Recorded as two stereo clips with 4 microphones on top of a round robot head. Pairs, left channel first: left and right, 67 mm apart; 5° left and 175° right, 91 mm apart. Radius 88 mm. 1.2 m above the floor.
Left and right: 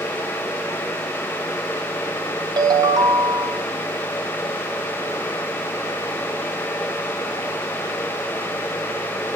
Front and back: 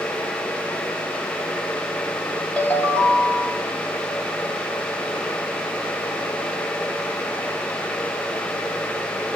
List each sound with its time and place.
2.6 s a ringtone: 75° right, 3.5 m